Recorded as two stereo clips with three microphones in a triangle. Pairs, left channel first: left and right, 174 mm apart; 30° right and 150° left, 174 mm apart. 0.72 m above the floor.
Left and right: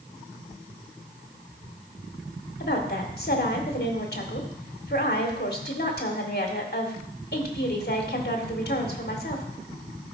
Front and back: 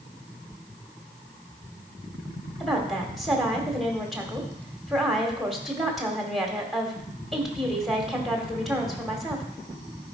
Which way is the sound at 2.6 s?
60° left.